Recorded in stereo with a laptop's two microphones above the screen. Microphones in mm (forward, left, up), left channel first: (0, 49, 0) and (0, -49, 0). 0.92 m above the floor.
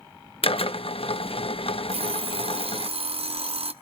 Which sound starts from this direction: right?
An alarm clock, at 1.9 s.